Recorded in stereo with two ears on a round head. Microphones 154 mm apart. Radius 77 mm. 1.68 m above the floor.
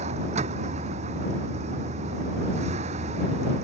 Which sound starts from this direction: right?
A vehicle, at 0.0 s.